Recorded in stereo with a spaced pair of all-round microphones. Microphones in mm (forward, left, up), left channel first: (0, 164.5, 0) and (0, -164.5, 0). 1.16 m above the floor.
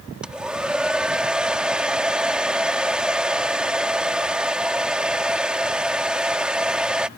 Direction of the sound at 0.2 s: 5° right (ahead or behind).